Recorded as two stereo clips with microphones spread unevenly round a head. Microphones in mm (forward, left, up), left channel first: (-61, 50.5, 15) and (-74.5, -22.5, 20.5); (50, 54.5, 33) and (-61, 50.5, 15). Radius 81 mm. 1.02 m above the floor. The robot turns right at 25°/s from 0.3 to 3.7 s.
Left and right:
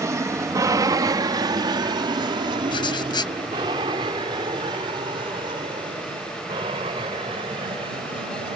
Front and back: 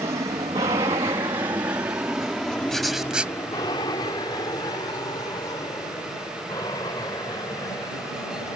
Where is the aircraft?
130° right; by 8.6 s 70° right.